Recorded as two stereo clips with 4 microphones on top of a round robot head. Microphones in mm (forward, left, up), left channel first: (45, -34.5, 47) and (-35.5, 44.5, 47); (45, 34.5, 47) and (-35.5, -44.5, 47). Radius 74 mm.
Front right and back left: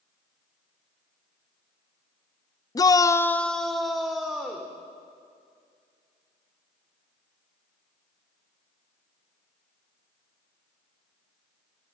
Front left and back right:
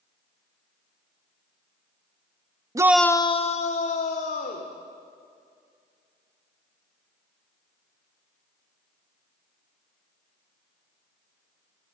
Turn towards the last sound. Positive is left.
turn(degrees=50)